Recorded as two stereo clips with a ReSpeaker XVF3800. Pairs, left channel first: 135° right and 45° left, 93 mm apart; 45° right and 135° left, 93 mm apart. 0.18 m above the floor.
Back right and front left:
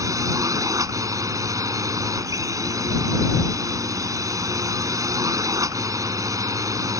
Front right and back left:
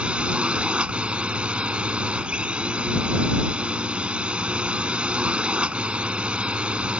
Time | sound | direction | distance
0.0 | a drone | 65° left | ?